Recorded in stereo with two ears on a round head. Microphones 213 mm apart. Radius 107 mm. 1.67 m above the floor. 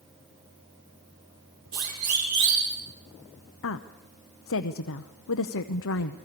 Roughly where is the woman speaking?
Left.